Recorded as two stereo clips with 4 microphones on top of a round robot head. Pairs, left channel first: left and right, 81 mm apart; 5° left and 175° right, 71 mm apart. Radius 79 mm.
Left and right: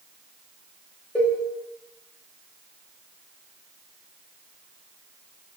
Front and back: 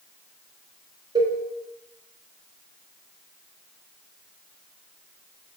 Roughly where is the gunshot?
I don't hear a gunshot.